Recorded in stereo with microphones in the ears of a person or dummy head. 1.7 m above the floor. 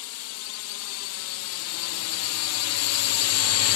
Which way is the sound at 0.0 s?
75° left (ahead or behind).